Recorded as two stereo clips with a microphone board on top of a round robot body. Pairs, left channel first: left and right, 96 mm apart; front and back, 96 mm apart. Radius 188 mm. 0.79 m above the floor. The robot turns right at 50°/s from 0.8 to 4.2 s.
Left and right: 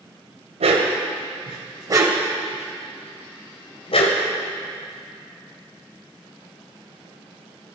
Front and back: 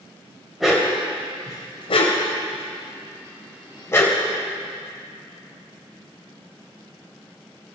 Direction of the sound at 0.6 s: 90° right.